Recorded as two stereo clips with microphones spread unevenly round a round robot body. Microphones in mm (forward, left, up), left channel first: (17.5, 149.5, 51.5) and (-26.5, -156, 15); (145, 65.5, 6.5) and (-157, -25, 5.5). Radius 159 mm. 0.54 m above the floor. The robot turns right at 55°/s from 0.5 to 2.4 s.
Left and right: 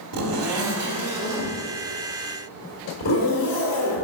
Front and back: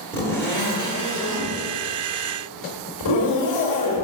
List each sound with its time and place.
0.1 s a zipper: 65° right, 2 m; by 4.0 s 40° left, 2 m